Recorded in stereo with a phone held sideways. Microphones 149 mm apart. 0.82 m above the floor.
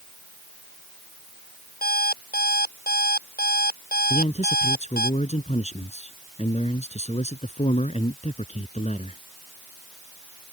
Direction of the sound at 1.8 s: 85° left.